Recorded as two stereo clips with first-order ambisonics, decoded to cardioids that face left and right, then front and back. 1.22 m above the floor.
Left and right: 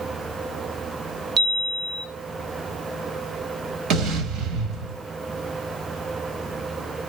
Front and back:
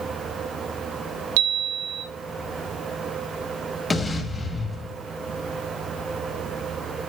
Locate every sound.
1.4 s a chime: 160° right, 1.5 m
3.9 s an explosion: 70° right, 1.3 m